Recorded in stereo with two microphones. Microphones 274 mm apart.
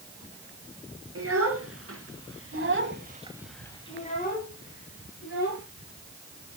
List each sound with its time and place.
1.1 s a child speaking: 60° right (ahead or behind), 3 m; by 5.6 s 45° left (ahead or behind), 3 m